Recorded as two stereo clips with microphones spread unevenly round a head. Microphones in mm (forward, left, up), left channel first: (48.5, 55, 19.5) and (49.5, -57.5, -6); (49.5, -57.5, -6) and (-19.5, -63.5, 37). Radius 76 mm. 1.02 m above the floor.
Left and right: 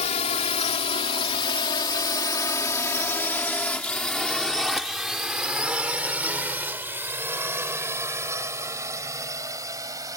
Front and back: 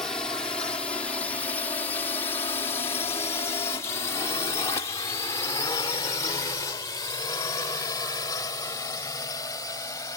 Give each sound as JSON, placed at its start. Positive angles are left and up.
{"t": 0.0, "sound": "a drone", "azimuth_deg": 70}